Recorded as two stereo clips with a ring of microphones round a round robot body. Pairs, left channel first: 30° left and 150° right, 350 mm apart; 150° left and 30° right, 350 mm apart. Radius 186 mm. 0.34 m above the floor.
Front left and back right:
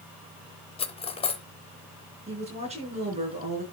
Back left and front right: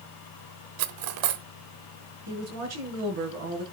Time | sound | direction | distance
0.8 | cutlery clinking | 45° right | 1.0 m
2.3 | a woman speaking | 75° right | 5 m